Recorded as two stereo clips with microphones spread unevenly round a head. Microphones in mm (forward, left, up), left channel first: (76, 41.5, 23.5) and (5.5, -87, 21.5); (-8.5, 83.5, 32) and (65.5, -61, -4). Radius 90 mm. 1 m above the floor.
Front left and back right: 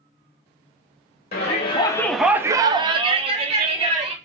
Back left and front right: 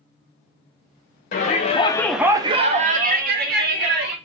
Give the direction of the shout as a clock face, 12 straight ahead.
9 o'clock.